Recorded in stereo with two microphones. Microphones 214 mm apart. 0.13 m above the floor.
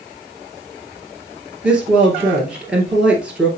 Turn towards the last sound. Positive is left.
turn(degrees=-5)  # may be behind; listen again after turning